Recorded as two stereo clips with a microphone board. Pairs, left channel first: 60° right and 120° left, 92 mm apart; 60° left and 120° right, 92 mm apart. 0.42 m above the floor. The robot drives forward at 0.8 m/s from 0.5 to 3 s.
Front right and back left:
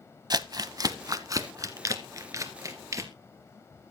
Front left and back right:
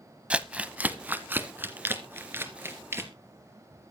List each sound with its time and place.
0.3 s crumpling: 165° left, 0.8 m; by 3.1 s 175° left, 3 m